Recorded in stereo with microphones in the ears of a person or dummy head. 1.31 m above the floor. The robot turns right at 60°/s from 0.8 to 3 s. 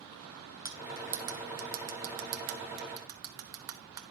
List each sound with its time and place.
0.7 s cutlery clinking: 15° right (ahead or behind), 0.5 m; by 4.0 s 20° right (ahead or behind), 0.5 m